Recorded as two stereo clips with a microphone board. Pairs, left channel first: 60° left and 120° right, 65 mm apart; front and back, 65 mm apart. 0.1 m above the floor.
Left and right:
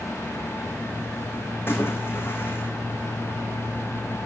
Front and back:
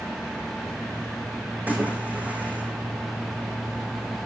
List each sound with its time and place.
1.7 s a splash: 115° left, 3 m